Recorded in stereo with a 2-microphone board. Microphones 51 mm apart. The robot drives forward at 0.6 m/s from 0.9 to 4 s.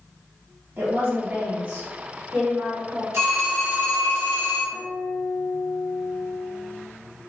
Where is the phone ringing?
65° right (ahead or behind), 1.7 m; by 4.6 s 50° right (ahead or behind), 1.9 m.